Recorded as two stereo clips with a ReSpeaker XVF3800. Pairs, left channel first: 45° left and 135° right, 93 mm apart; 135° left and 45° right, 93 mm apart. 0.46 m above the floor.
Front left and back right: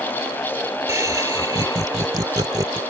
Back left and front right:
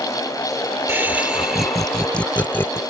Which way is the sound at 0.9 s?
100° right.